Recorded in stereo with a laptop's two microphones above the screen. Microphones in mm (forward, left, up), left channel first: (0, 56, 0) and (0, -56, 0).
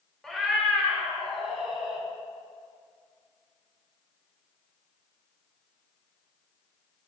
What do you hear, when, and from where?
0.2 s a cat meowing: 5° left (ahead or behind), 1.4 m; by 2.0 s 5° right (ahead or behind), 3 m